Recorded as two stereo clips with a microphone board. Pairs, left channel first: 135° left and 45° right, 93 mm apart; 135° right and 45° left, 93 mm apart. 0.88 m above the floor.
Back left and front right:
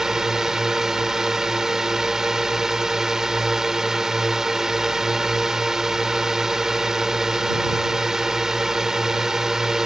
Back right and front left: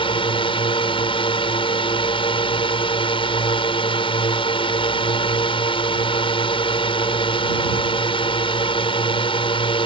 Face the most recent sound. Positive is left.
turn(degrees=-130)